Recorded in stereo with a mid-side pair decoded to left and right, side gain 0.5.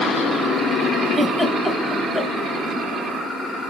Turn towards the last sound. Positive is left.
turn(degrees=20)